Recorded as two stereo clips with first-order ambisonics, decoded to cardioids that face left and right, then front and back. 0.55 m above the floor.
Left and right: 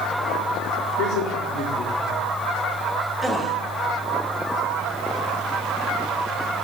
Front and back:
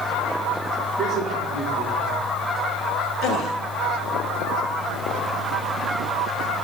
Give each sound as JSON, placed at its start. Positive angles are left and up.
{"t": 1.0, "sound": "a man speaking", "azimuth_deg": 115, "distance_m": 5.0}
{"t": 3.2, "sound": "a gasp", "azimuth_deg": 0, "distance_m": 1.4}